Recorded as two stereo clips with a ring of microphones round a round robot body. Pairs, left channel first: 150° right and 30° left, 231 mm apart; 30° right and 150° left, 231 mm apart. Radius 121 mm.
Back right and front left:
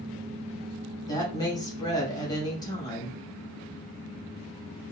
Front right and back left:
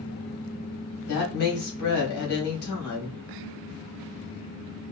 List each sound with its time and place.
1.1 s a woman speaking: 75° right, 2.5 m